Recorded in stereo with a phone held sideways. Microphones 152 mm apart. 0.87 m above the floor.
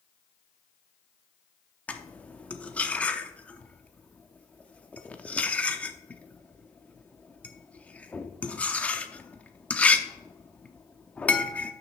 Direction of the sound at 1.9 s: 10° left (ahead or behind).